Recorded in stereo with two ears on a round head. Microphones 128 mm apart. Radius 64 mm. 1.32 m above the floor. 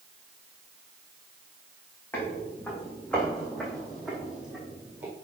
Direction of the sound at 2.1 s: 15° left (ahead or behind).